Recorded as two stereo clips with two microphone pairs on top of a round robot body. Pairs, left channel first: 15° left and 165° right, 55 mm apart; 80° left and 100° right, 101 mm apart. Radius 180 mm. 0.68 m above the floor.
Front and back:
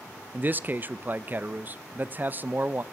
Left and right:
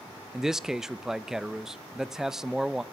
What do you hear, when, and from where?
0.3 s a man speaking: 175° right, 0.6 m